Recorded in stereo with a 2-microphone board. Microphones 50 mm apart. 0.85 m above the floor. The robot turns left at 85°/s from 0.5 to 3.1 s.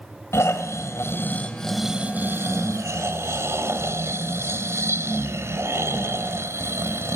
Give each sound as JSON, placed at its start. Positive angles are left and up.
{"t": 0.3, "sound": "snoring", "azimuth_deg": 110, "distance_m": 3.0}